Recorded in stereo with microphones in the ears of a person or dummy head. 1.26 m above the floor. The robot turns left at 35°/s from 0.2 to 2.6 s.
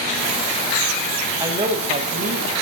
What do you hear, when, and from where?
1.4 s a man speaking: 15° right, 0.7 m; by 2.5 s 55° right, 0.7 m